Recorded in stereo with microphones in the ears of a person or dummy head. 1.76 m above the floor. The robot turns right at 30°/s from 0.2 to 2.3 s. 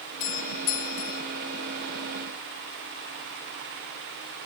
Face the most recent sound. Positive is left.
turn(degrees=135)